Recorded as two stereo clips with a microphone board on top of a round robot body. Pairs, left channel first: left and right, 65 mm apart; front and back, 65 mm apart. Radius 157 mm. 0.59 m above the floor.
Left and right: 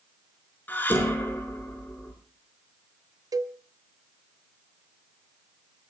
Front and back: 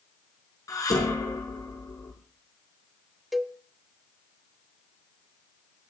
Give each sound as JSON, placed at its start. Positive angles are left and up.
{"t": 0.7, "sound": "dishes clattering", "azimuth_deg": 30, "distance_m": 6.0}
{"t": 3.3, "sound": "a cowbell", "azimuth_deg": -90, "distance_m": 1.5}